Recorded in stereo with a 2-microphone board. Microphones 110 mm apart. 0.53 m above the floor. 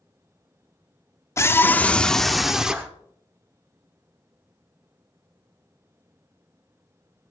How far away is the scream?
About 0.8 m.